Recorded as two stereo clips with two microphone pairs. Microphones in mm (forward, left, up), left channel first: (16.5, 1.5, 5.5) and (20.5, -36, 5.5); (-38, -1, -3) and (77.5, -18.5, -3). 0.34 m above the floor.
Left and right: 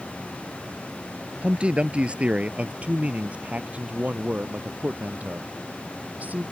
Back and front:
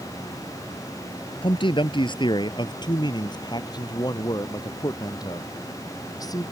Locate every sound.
1.4 s a man speaking: 145° right; by 6.4 s 130° right